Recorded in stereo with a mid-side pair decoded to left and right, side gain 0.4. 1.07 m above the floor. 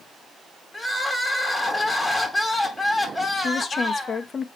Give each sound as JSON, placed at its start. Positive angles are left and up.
{"t": 0.7, "sound": "crying", "azimuth_deg": 15, "distance_m": 2.5}
{"t": 3.4, "sound": "a woman speaking", "azimuth_deg": 45, "distance_m": 1.1}